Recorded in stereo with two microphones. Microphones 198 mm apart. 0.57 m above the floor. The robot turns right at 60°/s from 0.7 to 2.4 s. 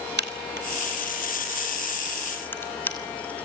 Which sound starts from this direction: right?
A crack, at 0.2 s.